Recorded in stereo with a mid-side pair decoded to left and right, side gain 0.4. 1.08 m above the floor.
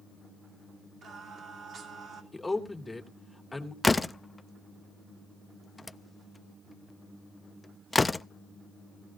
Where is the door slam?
20° left, 0.6 m.